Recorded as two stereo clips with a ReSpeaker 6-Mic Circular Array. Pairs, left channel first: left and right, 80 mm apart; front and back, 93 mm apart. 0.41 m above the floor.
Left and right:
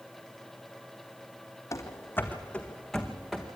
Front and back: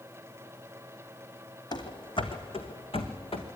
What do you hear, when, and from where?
1.7 s running footsteps: 40° left, 1.6 m; by 3.5 s 5° right, 2.5 m